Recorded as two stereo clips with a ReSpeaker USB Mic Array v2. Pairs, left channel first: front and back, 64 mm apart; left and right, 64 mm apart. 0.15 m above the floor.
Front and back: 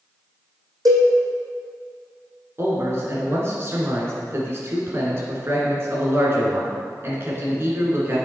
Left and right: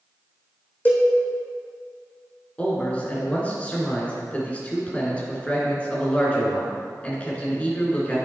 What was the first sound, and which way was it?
A cowbell, 155° left.